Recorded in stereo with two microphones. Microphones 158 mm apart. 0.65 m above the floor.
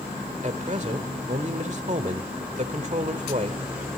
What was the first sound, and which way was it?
A man speaking, 50° right (ahead or behind).